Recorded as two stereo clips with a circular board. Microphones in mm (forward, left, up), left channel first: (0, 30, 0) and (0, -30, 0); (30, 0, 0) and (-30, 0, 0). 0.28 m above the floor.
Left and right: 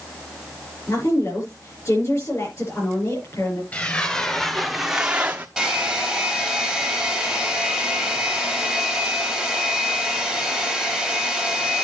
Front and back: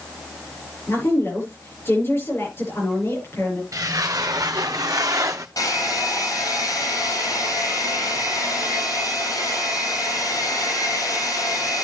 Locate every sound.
0.9 s a woman speaking: 50° left, 6.5 m
3.7 s footsteps: 155° left, 1.5 m; by 5.5 s 150° right, 1.1 m
5.6 s a hair dryer: straight ahead, 5 m